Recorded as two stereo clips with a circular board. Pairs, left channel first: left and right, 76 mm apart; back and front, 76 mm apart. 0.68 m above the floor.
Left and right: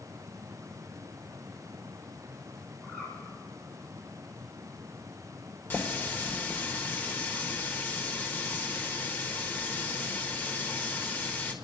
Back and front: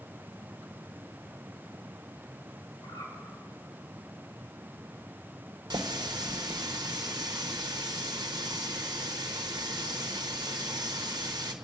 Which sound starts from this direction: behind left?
A bird, at 2.8 s.